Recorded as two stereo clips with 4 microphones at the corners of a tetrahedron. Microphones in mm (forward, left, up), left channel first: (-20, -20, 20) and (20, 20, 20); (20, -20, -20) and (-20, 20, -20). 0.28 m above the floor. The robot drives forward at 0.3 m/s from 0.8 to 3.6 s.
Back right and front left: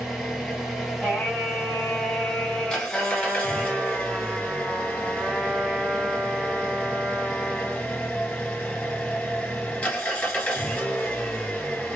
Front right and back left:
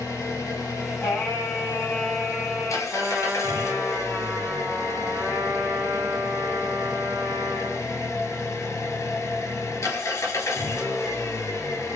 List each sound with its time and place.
0.0 s an engine running: 45° right, 1.5 m; by 12.0 s 80° right, 1.1 m
1.0 s singing: 80° right, 1.9 m; by 2.8 s 105° right, 2.0 m
2.9 s a trumpet: 125° left, 1.3 m; by 7.9 s 130° left, 1.4 m